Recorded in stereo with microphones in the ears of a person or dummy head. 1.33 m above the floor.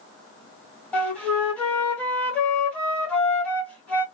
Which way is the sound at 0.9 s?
5° left (ahead or behind).